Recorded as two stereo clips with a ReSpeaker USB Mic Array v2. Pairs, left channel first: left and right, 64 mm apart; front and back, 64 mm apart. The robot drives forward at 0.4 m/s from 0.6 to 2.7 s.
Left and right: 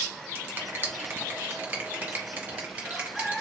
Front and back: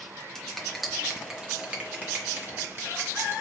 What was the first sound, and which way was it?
A finger snap, 80° right.